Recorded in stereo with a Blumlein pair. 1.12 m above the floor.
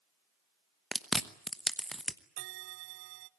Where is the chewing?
Straight ahead, 1.0 m.